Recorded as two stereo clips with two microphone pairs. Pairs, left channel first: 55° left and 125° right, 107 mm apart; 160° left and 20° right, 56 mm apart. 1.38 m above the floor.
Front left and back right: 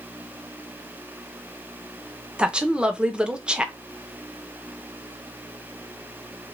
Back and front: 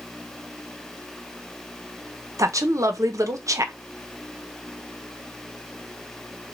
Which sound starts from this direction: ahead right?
A woman speaking, at 2.4 s.